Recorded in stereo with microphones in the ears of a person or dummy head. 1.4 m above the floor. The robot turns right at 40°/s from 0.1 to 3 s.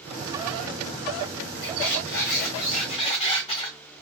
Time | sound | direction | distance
1.6 | a squeak | 90° left | 1.8 m